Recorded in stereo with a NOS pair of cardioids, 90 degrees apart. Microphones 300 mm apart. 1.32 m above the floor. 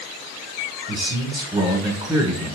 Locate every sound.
0.9 s a man speaking: 15° right, 1.2 m